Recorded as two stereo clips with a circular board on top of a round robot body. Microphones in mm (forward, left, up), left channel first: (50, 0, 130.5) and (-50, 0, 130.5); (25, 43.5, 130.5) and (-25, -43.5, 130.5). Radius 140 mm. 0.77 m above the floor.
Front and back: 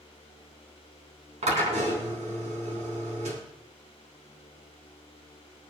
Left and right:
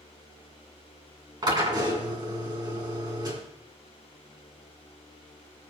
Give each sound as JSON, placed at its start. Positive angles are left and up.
{"t": 1.4, "sound": "a drill", "azimuth_deg": -170, "distance_m": 3.0}